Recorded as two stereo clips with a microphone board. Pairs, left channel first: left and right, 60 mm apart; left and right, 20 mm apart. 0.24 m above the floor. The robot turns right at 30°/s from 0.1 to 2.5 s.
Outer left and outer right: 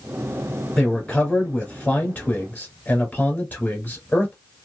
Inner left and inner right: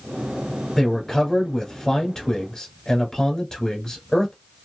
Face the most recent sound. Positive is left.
turn(degrees=20)  # may be behind; listen again after turning